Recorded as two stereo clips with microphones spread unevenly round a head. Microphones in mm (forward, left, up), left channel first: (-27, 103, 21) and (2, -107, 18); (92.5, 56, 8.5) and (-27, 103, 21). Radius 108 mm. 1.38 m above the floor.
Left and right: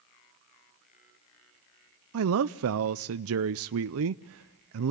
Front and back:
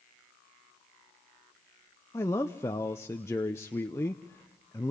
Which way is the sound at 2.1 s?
95° right.